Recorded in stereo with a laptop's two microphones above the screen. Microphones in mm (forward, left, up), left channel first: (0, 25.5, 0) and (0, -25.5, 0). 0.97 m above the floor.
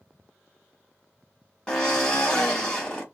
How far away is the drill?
About 0.8 m.